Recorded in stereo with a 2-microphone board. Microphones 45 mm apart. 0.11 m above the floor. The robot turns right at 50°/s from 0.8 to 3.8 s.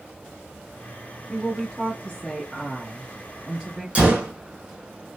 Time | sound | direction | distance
1.3 | a woman speaking | 90° left | 1.7 m
4.0 | a gunshot | 25° right (ahead or behind) | 0.8 m